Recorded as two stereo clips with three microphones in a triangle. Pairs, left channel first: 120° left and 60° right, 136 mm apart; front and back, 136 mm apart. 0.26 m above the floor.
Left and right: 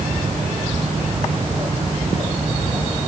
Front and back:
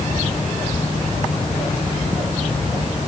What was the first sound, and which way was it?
Only background noise.